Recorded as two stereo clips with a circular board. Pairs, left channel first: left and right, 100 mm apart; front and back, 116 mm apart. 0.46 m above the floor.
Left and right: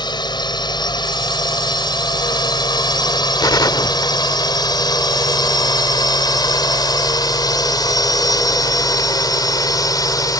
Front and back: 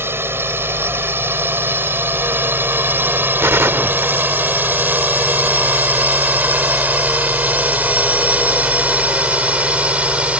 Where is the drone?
115° left; by 10.4 s 105° left.